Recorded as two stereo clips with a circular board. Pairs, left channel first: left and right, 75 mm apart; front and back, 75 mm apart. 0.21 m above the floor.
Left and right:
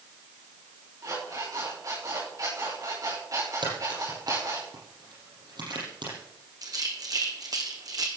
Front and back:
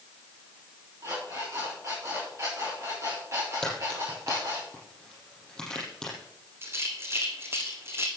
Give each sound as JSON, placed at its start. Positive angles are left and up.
{"t": 1.0, "sound": "an alarm clock", "azimuth_deg": -130, "distance_m": 8.5}
{"t": 3.6, "sound": "a crack", "azimuth_deg": -80, "distance_m": 7.0}
{"t": 6.6, "sound": "a rattle", "azimuth_deg": -120, "distance_m": 2.0}